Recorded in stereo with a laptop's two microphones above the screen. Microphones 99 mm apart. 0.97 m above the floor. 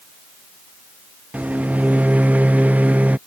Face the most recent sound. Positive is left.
turn(degrees=-15)  # may be behind; listen again after turning